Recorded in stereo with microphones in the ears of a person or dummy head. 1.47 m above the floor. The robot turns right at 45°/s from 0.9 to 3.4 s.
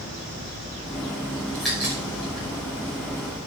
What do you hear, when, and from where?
1.5 s a crack: 5° left (ahead or behind), 5.5 m; by 2.5 s 35° right (ahead or behind), 5.5 m